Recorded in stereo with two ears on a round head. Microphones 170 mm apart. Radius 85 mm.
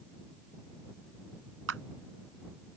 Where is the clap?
80° right.